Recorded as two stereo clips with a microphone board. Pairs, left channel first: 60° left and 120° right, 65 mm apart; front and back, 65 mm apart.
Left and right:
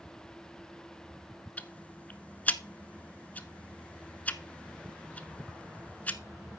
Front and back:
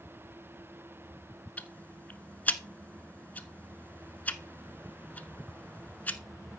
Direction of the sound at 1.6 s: 30° left.